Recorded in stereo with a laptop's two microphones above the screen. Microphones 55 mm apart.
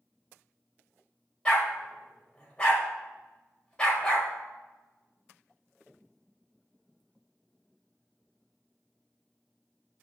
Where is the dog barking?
15° left (ahead or behind), 1.5 m.